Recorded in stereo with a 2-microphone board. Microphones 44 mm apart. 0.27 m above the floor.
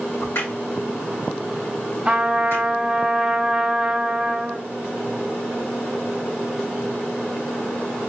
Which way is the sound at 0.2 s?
65° left (ahead or behind).